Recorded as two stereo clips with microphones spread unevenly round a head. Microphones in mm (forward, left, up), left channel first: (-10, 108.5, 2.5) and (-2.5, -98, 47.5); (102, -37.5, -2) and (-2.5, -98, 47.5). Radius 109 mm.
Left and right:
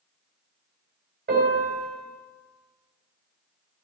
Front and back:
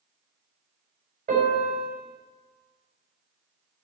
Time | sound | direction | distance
1.3 | a piano | 140° right | 4.5 m